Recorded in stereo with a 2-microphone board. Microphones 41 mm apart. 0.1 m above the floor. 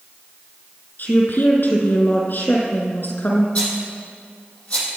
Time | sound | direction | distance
1.0 | a woman speaking | 60° left (ahead or behind) | 3.5 m
3.5 | a rattle | 35° left (ahead or behind) | 4.5 m